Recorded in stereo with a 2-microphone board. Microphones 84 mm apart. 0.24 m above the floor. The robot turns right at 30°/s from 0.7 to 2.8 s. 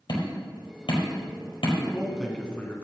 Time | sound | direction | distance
0.1 | hammering | 60° left (ahead or behind) | 4.5 m
1.8 | a man speaking | 10° right | 2.5 m